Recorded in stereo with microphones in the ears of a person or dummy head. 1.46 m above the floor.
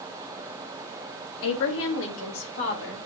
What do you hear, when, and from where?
1.4 s a woman speaking: 70° left (ahead or behind), 1.8 m; by 3.0 s 65° left (ahead or behind), 3 m